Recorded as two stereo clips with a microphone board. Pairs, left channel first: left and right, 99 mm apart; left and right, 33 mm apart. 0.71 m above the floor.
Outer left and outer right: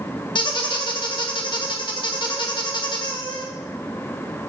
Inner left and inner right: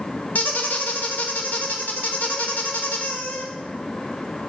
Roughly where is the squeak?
Left.